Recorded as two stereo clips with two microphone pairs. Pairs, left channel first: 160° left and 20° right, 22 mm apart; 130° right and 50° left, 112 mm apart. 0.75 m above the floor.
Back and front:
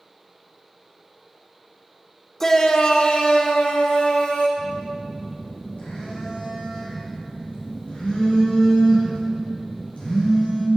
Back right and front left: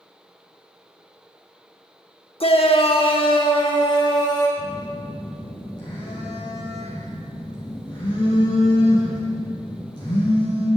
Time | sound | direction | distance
2.4 | a shout | 135° right | 1.2 m
4.6 | a phone buzzing | straight behind | 5.5 m